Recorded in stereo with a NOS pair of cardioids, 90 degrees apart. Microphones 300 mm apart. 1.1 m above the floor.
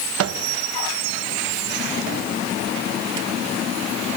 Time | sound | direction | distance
0.2 | a microwave | 50° right | 0.8 m